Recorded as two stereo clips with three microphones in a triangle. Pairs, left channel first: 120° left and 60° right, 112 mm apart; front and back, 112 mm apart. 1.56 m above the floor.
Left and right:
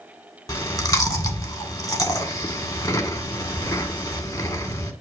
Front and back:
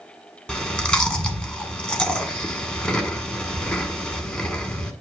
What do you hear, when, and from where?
0.5 s chewing: 75° left, 1.5 m